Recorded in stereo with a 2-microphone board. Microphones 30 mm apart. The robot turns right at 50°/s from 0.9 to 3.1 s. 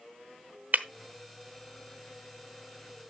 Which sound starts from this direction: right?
Breaking glass, at 0.7 s.